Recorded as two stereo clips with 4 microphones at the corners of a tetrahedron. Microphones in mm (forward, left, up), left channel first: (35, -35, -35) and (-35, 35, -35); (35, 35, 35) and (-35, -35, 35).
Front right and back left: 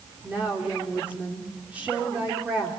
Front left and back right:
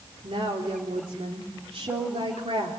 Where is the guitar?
No guitar in this recording.